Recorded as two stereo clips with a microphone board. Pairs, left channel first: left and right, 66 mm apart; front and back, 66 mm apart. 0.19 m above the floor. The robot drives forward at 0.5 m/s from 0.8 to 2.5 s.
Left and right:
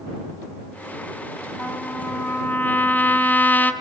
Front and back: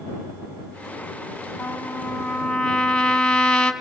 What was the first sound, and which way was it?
A trumpet, 50° left.